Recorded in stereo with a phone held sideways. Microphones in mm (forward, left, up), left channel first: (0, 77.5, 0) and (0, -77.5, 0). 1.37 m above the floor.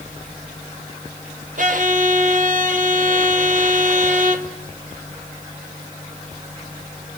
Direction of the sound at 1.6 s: 55° right (ahead or behind).